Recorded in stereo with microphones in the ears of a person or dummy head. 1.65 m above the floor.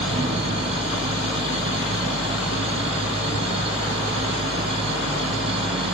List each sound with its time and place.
0.0 s a machine running: 30° right (ahead or behind), 1.4 m